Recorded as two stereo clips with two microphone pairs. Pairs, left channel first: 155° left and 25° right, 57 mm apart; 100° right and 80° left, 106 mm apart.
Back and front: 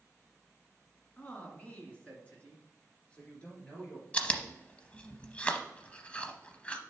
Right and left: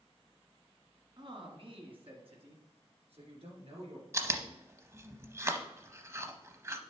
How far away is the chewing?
About 0.7 m.